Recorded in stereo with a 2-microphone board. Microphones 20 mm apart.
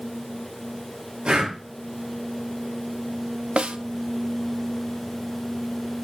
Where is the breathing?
55° right (ahead or behind), 4.5 m.